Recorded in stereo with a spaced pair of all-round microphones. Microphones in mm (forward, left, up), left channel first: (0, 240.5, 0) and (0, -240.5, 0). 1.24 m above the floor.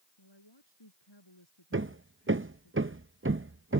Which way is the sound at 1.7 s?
25° right (ahead or behind).